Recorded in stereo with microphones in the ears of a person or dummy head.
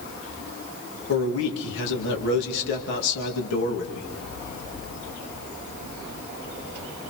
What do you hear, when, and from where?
1.1 s a man speaking: 70° left (ahead or behind), 2.5 m